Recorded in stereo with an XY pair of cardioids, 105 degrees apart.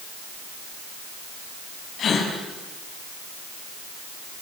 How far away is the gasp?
About 7 m.